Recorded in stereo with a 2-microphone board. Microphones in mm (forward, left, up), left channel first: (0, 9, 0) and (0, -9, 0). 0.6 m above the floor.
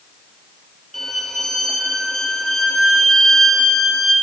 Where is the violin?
20° left (ahead or behind), 4.5 m.